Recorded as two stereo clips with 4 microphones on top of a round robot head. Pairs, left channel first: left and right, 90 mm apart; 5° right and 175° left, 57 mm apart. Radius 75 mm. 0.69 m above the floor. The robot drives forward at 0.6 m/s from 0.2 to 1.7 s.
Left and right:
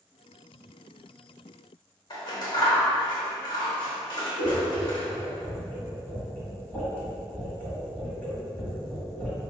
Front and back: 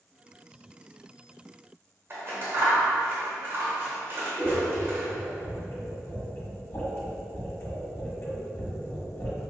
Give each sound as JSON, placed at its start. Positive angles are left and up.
{"t": 2.1, "sound": "scissors", "azimuth_deg": 130, "distance_m": 1.1}
{"t": 4.4, "sound": "scissors", "azimuth_deg": 25, "distance_m": 1.6}